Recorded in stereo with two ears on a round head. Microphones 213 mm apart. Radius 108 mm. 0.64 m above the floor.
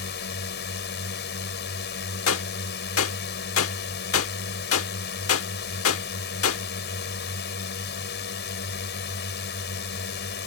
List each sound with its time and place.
0.0 s a drone: 50° left (ahead or behind)
2.3 s a gunshot: 60° left (ahead or behind)